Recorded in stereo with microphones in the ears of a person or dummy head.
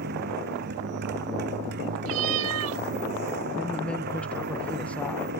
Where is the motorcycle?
60° right (ahead or behind).